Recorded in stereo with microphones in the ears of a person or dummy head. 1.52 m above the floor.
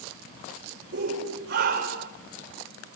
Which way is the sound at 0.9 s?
50° right (ahead or behind).